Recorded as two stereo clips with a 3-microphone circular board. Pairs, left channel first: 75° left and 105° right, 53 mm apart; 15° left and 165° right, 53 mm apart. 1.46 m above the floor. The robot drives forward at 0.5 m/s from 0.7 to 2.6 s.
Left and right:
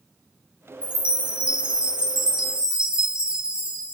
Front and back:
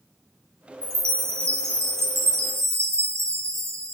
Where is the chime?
170° right, 2.5 m; by 3.9 s 175° right, 3 m.